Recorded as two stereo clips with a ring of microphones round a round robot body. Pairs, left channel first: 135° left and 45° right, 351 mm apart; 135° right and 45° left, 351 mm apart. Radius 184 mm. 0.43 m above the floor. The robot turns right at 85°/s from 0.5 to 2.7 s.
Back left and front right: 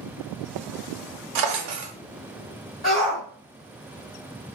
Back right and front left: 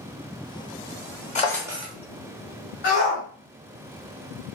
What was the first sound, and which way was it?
A drawer, 65° right.